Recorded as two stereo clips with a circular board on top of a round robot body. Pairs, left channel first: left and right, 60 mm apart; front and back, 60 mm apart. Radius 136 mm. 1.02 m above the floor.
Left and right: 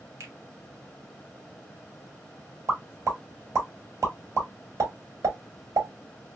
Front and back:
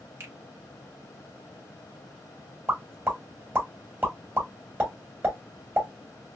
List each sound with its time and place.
0.2 s a finger snap: 130° right, 1.2 m
2.7 s a pop: 125° right, 1.7 m